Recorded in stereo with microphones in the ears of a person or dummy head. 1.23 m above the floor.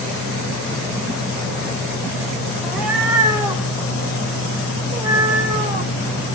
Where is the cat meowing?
5° right (ahead or behind), 2 m; by 5.9 s 45° right (ahead or behind), 3.5 m.